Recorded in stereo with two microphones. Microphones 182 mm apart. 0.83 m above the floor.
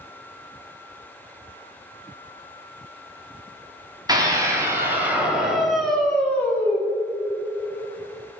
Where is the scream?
20° right (ahead or behind), 2.5 m; by 6.8 s 15° left (ahead or behind), 2.5 m.